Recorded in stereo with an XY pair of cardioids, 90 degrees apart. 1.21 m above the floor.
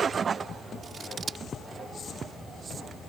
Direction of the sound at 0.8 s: 55° right.